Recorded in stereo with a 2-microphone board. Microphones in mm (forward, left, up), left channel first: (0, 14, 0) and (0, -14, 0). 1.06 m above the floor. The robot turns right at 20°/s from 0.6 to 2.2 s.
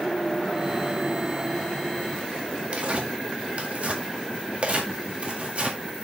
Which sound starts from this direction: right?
Tearing paper, at 2.7 s.